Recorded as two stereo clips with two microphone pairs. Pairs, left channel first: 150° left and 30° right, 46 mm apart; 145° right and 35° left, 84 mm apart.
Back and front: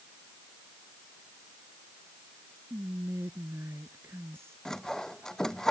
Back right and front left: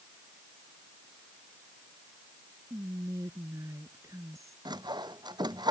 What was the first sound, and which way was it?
Whispering, 15° right.